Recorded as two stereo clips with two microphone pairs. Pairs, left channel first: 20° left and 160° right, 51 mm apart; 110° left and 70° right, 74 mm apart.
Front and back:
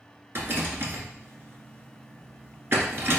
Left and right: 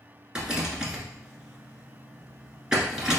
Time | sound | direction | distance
0.3 | a rattle | 145° right | 1.2 m